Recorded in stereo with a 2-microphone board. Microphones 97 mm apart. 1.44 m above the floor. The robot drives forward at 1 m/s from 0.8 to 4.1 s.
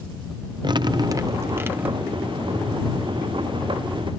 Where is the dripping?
50° right (ahead or behind); by 2.2 s 15° right (ahead or behind).